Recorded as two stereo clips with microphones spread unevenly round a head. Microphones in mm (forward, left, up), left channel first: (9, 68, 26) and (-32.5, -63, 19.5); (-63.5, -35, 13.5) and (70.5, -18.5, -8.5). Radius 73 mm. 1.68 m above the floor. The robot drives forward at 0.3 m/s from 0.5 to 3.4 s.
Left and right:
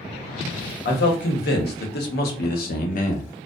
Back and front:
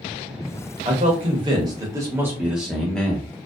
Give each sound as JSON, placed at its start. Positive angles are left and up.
{"t": 0.8, "sound": "a man speaking", "azimuth_deg": 55, "distance_m": 0.9}